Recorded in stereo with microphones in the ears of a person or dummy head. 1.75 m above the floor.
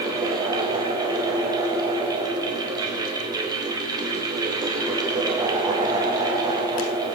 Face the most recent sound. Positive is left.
turn(degrees=-20)  # may be behind; listen again after turning